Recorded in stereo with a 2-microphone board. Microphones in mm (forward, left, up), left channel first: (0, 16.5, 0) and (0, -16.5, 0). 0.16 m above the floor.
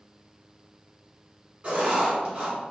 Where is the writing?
30° right (ahead or behind), 1.4 m.